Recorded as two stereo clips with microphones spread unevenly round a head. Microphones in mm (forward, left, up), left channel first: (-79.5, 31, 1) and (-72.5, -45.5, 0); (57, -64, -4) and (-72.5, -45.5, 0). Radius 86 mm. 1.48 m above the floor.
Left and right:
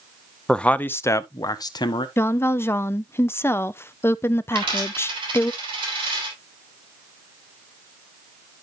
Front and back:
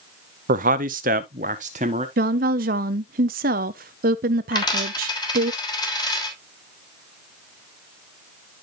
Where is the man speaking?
175° left, 0.7 m; by 2.1 s 115° left, 1.0 m.